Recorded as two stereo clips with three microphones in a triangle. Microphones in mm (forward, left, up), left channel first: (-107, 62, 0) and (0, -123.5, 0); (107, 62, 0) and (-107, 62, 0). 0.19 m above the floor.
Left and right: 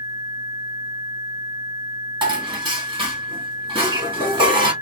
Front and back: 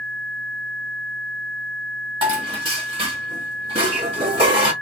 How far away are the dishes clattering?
About 1.4 m.